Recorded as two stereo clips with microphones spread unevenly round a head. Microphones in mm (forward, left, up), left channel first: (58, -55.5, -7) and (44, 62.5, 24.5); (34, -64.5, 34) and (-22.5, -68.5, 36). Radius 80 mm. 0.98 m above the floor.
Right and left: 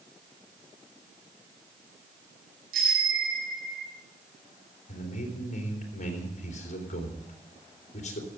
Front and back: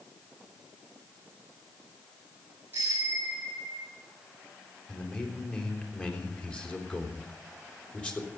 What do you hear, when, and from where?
2.7 s a bicycle bell: 110° left, 4 m; by 3.9 s 130° left, 2.5 m
4.9 s a man speaking: 65° right, 3.5 m